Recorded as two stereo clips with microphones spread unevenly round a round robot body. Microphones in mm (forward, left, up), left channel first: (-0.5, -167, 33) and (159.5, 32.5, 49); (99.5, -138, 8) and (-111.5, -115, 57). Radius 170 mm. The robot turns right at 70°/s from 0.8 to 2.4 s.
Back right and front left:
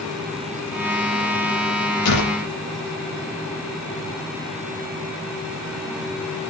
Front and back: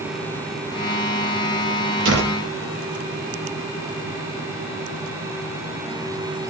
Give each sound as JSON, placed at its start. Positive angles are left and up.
{"t": 2.0, "sound": "a door slam", "azimuth_deg": -160, "distance_m": 8.0}